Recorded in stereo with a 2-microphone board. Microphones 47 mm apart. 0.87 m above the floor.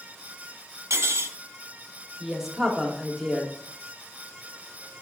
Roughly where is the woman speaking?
Centre.